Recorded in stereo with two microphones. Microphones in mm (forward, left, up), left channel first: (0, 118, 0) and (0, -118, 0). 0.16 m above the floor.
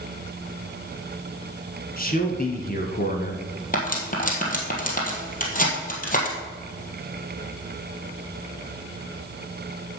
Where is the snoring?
I don't hear snoring.